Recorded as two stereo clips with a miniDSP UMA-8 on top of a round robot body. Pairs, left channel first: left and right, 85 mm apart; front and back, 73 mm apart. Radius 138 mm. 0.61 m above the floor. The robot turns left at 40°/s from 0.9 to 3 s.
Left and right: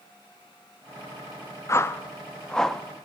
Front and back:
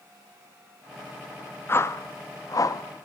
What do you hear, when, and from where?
1.7 s a whoosh: 45° left, 1.3 m; by 2.8 s straight ahead, 1.3 m